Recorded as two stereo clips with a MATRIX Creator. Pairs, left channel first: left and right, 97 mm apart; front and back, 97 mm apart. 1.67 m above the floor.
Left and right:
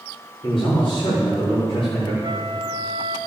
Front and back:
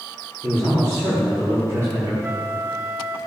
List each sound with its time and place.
0.4 s a man speaking: 120° left, 4.5 m
2.2 s a flute: 115° right, 1.1 m